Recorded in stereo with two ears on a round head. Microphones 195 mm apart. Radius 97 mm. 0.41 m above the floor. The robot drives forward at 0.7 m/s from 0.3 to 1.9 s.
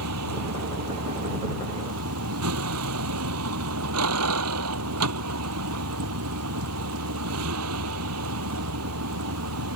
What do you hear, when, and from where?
0.0 s a vehicle: 85° right; by 9.8 s 80° right